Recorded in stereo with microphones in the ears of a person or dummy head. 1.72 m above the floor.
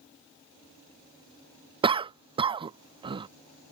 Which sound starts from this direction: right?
A cough, at 1.8 s.